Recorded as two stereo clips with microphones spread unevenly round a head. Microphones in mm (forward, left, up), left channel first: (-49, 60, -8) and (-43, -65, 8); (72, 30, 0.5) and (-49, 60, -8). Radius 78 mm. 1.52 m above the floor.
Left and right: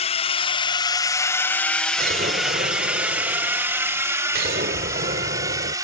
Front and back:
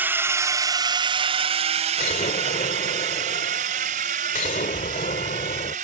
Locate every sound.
0.0 s a drone: 95° left; by 5.8 s 150° right
2.0 s an explosion: 55° right